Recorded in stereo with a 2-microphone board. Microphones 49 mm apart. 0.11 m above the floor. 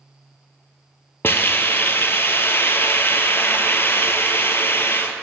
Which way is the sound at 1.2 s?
55° left (ahead or behind).